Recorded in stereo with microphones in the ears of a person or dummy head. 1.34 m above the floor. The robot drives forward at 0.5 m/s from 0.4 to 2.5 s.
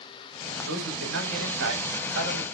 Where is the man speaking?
75° right (ahead or behind), 7.5 m; by 2.5 s 80° right, 7.5 m.